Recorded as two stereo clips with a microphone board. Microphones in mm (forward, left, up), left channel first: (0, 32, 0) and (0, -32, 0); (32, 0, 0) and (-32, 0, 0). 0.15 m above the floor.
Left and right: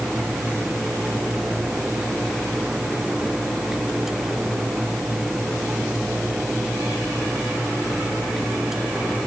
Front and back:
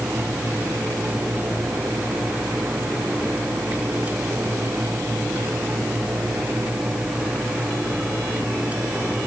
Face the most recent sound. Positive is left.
No sound to turn to.